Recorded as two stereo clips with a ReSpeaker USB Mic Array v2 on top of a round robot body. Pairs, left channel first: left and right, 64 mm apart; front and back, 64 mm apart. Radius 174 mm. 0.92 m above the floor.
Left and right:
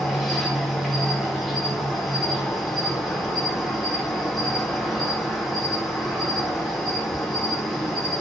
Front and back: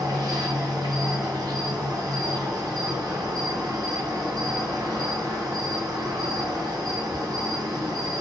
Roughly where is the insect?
Behind.